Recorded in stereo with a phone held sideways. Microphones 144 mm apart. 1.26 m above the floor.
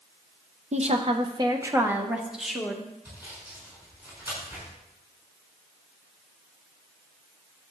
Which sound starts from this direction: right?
A woman speaking, at 0.7 s.